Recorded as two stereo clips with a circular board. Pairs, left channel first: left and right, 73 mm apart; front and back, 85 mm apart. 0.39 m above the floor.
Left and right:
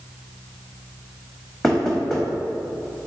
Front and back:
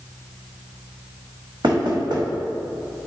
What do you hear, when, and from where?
1.6 s knocking: 175° left, 1.5 m